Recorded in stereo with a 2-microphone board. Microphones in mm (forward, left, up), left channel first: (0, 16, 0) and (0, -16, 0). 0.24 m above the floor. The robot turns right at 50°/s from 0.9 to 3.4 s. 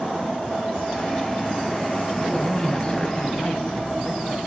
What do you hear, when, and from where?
2.2 s a man speaking: 25° left, 1.8 m; by 4.4 s 85° left, 1.8 m